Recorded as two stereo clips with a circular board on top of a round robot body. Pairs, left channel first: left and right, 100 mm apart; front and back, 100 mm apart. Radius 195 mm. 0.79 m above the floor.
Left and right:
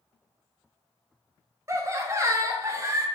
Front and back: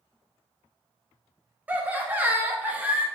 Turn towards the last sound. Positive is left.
turn(degrees=-120)